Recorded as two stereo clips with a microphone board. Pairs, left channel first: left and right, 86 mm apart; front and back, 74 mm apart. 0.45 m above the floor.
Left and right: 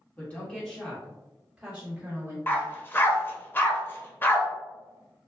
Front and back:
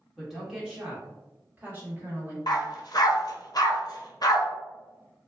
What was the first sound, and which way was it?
A woman speaking, 95° left.